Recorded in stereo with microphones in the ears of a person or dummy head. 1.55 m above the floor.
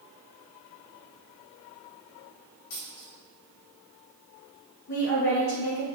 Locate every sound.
2.7 s a dropped coin: 55° left (ahead or behind), 1.3 m
4.9 s a woman speaking: 65° left (ahead or behind), 1.9 m